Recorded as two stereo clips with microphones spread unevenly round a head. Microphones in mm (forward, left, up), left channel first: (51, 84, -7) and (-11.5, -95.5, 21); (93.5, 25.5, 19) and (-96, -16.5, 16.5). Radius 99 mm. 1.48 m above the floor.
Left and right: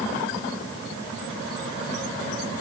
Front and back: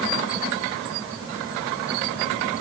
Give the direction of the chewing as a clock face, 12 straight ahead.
No chewing in this recording.